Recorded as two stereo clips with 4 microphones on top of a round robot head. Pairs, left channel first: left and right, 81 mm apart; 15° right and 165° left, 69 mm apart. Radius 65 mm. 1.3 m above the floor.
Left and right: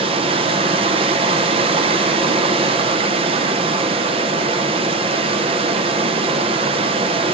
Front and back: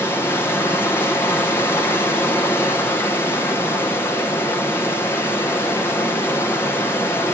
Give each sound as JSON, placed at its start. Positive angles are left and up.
{"t": 0.0, "sound": "running water", "azimuth_deg": -75, "distance_m": 0.8}